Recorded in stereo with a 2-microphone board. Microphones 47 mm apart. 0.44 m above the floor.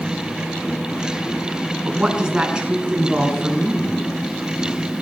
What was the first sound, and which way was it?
A woman speaking, 15° right (ahead or behind).